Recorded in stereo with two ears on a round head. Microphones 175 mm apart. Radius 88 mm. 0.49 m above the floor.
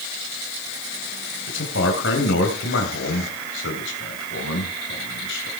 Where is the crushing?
No crushing in this recording.